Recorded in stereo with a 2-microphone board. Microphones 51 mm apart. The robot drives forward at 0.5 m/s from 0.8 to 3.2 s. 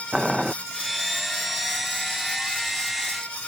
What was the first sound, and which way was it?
Boiling, 10° right (ahead or behind).